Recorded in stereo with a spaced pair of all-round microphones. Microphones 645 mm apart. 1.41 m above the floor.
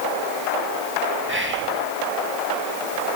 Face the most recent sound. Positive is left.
turn(degrees=-15)  # may be behind; listen again after turning